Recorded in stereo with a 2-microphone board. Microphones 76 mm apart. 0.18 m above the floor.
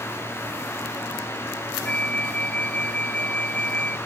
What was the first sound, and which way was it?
A flute, 15° left (ahead or behind).